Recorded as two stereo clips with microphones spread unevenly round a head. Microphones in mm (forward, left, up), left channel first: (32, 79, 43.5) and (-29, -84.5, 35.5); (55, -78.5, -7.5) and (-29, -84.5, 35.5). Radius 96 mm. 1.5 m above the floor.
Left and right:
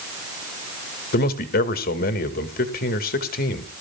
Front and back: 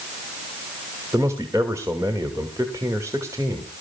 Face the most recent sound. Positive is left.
turn(degrees=110)